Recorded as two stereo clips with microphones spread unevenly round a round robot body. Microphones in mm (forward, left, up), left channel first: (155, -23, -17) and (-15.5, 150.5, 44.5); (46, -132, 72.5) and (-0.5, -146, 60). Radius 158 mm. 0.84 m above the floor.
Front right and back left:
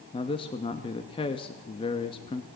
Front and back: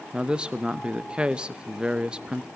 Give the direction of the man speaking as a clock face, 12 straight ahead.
3 o'clock.